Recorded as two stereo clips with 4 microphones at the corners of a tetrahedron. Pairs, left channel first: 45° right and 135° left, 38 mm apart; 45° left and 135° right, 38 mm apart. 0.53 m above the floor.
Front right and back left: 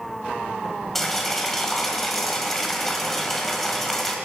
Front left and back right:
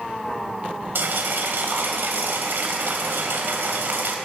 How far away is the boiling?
About 1.8 m.